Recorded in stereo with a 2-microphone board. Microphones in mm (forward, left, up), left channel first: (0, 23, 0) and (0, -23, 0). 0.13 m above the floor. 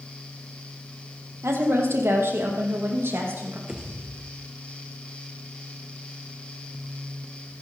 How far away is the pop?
About 2 m.